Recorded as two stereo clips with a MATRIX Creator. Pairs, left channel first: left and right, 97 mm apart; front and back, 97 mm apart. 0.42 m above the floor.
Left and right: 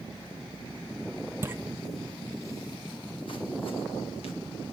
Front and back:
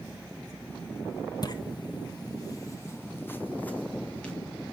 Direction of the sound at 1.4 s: 30° right.